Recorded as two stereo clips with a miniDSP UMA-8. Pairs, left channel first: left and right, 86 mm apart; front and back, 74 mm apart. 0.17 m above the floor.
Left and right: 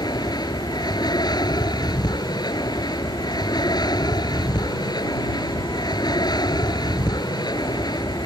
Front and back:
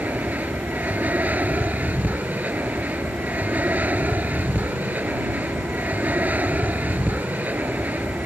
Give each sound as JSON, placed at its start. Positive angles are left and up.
{"t": 0.0, "sound": "an aircraft", "azimuth_deg": 115}